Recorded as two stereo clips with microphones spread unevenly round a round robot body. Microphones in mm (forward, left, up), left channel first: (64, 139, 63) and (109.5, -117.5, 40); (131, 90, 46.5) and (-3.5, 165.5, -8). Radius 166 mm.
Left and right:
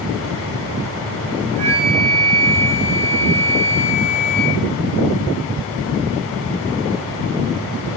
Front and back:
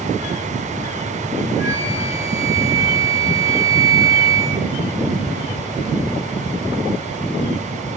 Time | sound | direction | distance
1.6 | a flute | 120° right | 9.5 m